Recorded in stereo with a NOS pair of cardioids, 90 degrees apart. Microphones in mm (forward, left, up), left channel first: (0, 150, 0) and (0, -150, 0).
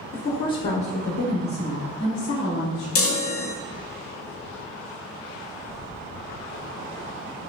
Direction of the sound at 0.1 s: 30° left.